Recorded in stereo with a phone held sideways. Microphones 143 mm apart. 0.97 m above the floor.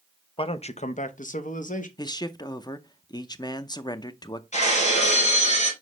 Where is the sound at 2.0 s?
30° left (ahead or behind), 0.6 m.